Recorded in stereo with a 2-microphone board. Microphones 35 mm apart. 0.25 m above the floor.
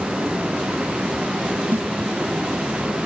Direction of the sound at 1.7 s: 75° right (ahead or behind).